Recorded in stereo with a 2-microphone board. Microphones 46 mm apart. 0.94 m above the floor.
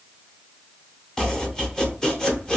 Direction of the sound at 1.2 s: 15° left (ahead or behind).